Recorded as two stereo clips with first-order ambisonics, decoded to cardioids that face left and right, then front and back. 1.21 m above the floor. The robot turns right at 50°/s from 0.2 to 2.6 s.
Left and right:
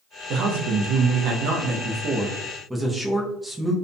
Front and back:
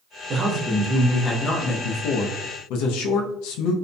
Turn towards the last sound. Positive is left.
turn(degrees=-10)